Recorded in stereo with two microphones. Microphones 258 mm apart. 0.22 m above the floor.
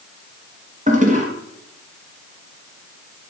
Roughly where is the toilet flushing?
Right.